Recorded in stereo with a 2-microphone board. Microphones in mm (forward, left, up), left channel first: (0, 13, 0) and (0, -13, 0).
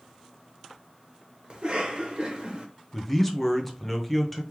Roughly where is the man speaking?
Centre.